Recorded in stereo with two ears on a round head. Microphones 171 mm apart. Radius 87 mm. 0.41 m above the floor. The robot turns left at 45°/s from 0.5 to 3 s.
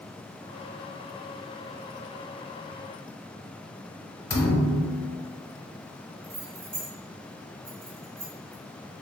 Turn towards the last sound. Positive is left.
turn(degrees=-30)  # may be behind; listen again after turning